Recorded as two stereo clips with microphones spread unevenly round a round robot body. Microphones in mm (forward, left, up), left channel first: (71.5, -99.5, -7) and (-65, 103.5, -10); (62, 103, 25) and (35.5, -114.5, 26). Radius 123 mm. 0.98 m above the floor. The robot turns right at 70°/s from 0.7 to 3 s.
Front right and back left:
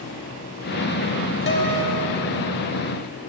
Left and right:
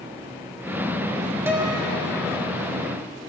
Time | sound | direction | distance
1.5 | a guitar | 20° right | 1.2 m